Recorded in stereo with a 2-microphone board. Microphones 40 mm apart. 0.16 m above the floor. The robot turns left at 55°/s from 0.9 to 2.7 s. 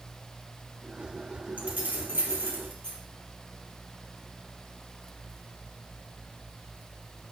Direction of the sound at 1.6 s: 35° right (ahead or behind).